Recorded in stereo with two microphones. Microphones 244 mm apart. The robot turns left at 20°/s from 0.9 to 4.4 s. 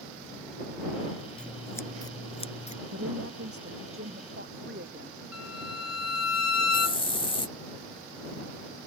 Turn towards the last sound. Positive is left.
turn(degrees=20)  # may be behind; listen again after turning